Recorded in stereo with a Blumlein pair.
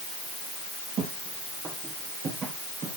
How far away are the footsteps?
About 5 m.